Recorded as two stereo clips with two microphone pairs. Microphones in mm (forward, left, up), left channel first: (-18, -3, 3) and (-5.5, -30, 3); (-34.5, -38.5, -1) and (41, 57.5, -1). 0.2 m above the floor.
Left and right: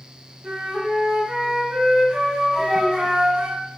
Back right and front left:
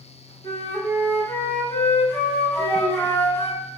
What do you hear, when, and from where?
0.4 s a flute: 75° right, 1.1 m
2.6 s a child speaking: 155° left, 0.8 m